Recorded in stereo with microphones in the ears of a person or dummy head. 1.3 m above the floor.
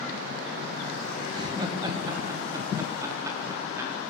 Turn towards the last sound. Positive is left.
turn(degrees=-15)  # may be behind; listen again after turning